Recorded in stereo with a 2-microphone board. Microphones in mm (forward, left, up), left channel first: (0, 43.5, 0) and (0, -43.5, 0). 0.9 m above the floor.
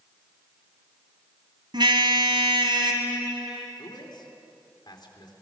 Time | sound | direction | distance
1.7 | a car horn | 60° right (ahead or behind) | 2.5 m
3.8 | a man speaking | 55° left (ahead or behind) | 3 m